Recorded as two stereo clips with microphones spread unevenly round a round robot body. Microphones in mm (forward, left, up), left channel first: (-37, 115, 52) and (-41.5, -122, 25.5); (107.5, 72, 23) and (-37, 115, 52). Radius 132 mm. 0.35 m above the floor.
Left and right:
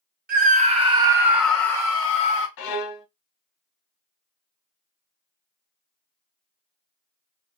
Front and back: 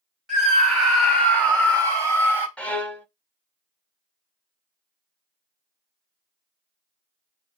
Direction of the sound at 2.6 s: 65° left.